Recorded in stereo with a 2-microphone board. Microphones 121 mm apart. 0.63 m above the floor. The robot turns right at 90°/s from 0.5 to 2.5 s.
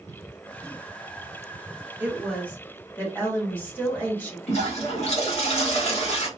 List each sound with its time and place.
2.0 s a woman speaking: 20° right, 1.2 m; by 4.4 s 25° left, 1.2 m
4.5 s a toilet flushing: 60° left (ahead or behind), 1.4 m